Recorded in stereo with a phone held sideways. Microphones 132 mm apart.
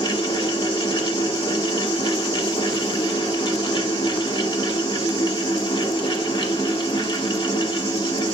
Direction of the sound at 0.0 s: 40° left (ahead or behind).